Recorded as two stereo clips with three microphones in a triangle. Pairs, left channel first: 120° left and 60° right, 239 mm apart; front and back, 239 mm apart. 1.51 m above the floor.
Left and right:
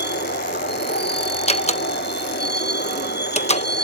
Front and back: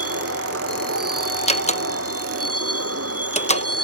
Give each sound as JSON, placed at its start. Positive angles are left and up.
{"t": 0.0, "sound": "a vehicle", "azimuth_deg": 165}
{"t": 1.5, "sound": "a door slam", "azimuth_deg": 60}